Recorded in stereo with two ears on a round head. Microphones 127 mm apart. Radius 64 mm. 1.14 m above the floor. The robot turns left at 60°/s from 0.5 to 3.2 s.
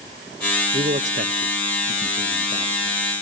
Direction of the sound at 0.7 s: 30° right (ahead or behind).